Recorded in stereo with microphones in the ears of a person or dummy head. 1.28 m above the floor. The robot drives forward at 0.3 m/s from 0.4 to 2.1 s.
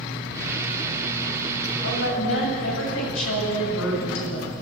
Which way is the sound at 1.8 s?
80° left.